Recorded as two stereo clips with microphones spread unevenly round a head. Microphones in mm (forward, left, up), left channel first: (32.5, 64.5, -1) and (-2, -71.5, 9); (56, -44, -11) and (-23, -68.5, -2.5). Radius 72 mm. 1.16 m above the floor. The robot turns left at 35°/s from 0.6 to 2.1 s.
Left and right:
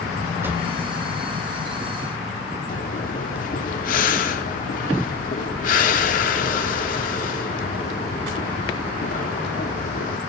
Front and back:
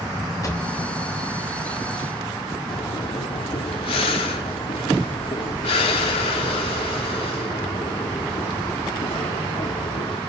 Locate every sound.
0.4 s a drawer: 30° right, 3 m
2.7 s breathing: 50° left, 1.5 m